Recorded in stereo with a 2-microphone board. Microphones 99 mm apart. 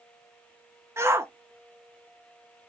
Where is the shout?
25° right (ahead or behind), 1.1 m.